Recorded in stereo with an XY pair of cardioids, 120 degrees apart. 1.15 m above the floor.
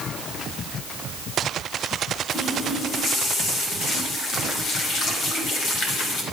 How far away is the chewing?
No chewing in this recording.